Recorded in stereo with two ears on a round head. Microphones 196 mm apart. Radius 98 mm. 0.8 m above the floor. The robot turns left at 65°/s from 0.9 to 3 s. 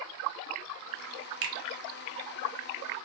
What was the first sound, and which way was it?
A finger snap, 55° right (ahead or behind).